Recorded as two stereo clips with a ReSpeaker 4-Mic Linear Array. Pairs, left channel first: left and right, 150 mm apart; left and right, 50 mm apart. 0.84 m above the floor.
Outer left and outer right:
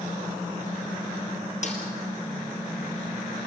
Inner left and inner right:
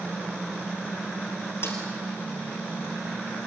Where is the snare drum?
55° left (ahead or behind), 3.5 m.